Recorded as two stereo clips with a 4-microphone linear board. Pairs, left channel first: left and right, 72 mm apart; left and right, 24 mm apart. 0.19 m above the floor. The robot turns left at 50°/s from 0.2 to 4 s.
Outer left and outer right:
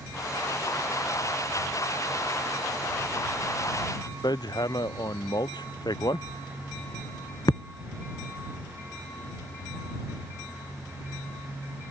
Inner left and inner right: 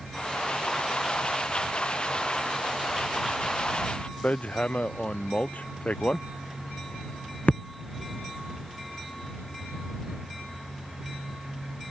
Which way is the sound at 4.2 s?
70° left (ahead or behind).